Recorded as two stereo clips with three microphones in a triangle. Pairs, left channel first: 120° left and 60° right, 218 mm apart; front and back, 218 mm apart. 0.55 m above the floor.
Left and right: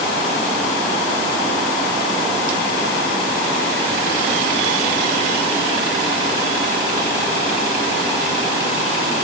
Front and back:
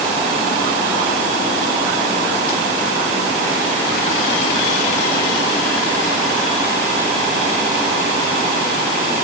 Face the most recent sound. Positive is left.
No sound to turn to.